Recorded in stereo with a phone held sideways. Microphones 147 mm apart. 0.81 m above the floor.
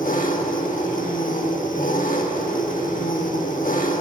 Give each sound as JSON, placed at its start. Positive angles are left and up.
{"t": 0.0, "sound": "an engine running", "side_deg": 65, "distance_m": 1.2}